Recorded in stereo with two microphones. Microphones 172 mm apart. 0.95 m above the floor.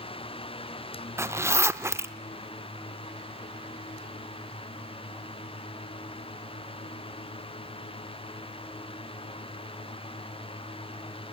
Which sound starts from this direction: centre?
A zipper, at 1.2 s.